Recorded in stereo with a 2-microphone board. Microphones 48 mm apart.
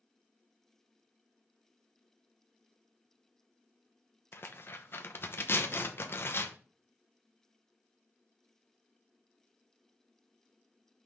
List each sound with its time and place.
4.3 s tearing paper: 55° left (ahead or behind), 0.9 m